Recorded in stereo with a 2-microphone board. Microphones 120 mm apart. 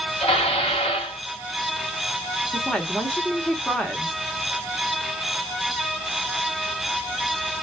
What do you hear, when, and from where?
0.2 s dishes clattering: 55° left (ahead or behind), 1.9 m
2.5 s a woman speaking: 5° left (ahead or behind), 0.9 m